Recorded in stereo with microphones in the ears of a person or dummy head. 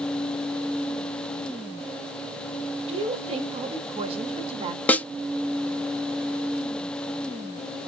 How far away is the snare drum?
About 0.6 m.